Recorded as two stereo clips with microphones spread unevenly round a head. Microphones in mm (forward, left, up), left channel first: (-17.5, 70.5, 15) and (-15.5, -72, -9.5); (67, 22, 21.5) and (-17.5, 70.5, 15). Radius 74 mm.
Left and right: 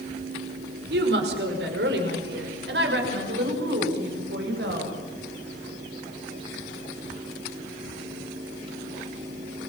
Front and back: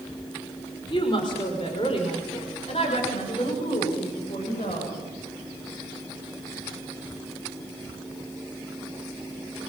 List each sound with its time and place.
0.9 s a woman speaking: 90° right, 5 m; by 4.9 s 80° right, 7.5 m